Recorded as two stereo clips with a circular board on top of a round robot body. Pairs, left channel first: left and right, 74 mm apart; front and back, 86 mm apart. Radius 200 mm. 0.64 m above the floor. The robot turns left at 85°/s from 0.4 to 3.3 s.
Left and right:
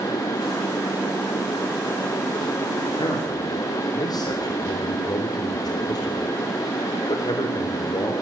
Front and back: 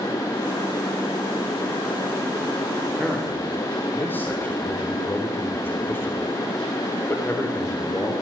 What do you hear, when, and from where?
2.9 s a man speaking: 100° left, 3.5 m; by 8.1 s 65° left, 3.5 m